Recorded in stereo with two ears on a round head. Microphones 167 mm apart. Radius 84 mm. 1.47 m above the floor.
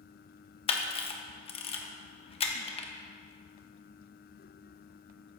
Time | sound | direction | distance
0.7 | a camera shutter | 30° left (ahead or behind) | 1.1 m